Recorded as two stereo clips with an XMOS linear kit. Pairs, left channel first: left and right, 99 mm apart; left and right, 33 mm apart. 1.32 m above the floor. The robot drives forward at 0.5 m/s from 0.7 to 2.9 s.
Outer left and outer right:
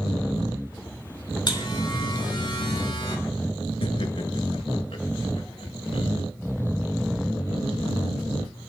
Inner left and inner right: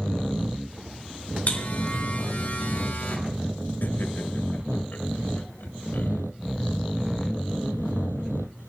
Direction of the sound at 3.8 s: 75° left (ahead or behind).